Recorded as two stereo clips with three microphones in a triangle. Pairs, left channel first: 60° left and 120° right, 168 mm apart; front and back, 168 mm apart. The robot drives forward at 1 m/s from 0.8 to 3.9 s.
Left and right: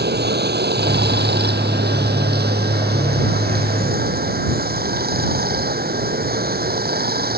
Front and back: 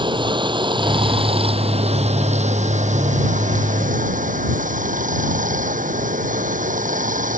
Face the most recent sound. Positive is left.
turn(degrees=-140)